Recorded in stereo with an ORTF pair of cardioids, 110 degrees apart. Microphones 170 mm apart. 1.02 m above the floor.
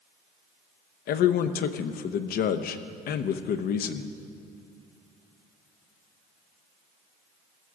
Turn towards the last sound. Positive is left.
turn(degrees=65)